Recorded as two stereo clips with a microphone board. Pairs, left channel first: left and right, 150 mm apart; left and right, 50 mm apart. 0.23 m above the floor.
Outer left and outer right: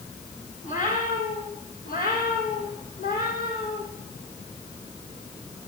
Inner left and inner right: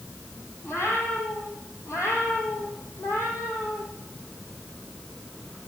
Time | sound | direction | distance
0.6 | a cat meowing | 60° left (ahead or behind) | 4.5 m